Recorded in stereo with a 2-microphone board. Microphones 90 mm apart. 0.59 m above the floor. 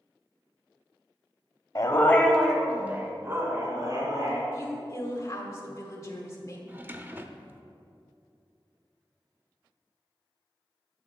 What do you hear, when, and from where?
1.8 s a dog barking: 40° left (ahead or behind), 0.9 m; by 4.4 s 40° right (ahead or behind), 2.5 m
4.5 s a woman speaking: 35° left (ahead or behind), 1.6 m
6.7 s a drawer: 20° right (ahead or behind), 0.6 m